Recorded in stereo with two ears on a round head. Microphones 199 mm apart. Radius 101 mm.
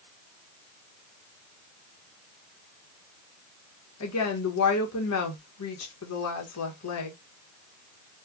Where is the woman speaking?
80° left, 1.2 m.